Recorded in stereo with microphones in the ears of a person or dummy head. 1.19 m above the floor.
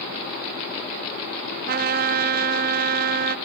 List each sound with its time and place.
1.7 s a trumpet: 45° right (ahead or behind)